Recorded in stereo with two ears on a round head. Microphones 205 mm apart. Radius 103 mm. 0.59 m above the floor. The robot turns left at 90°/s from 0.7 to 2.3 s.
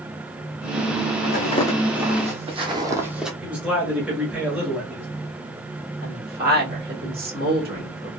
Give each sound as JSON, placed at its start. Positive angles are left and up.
{"t": 1.2, "sound": "footsteps", "side_deg": 45, "distance_m": 1.6}
{"t": 3.4, "sound": "a man speaking", "side_deg": -5, "distance_m": 1.2}
{"t": 6.0, "sound": "a woman speaking", "side_deg": -40, "distance_m": 1.9}